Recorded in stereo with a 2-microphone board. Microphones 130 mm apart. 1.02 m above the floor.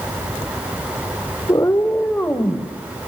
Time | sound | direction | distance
1.5 | a cat meowing | 30° left (ahead or behind) | 1.5 m